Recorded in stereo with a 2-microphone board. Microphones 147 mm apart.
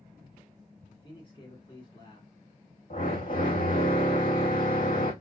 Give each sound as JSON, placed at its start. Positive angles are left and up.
{"t": 0.9, "sound": "a man speaking", "side_deg": 35, "distance_m": 2.0}
{"t": 2.9, "sound": "a drill", "side_deg": 70, "distance_m": 3.0}